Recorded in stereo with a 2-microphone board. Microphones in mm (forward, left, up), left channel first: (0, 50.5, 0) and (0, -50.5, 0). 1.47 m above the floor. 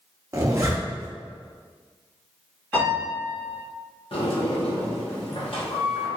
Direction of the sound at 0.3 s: 30° right (ahead or behind).